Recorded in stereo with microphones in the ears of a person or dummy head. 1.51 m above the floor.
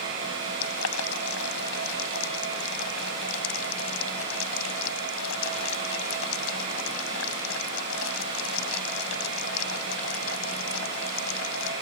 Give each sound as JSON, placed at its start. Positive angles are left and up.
{"t": 0.6, "sound": "boiling", "side_deg": 85}